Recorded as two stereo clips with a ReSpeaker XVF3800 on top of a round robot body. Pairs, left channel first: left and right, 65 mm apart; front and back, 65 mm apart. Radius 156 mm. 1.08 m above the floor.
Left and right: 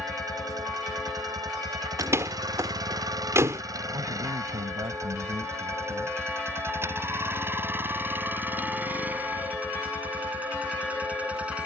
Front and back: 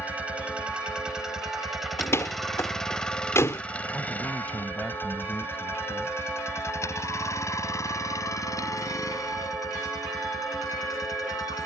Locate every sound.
0.0 s a vehicle: 115° right; by 11.7 s 20° right
2.0 s a door slam: 45° right
3.9 s a man speaking: 70° right